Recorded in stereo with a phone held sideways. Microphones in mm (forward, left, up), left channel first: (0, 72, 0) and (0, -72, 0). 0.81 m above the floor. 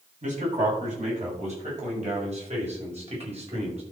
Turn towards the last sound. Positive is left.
turn(degrees=-45)  # may be behind; listen again after turning